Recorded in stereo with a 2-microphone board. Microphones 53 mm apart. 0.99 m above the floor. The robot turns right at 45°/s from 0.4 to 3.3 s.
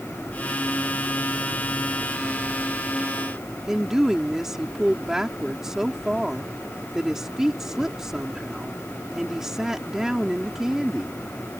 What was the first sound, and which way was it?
A woman speaking, 10° right (ahead or behind).